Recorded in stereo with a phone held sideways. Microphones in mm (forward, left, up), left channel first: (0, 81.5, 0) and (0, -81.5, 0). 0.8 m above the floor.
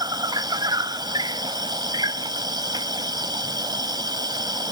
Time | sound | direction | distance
0.0 | an insect | 25° right (ahead or behind) | ?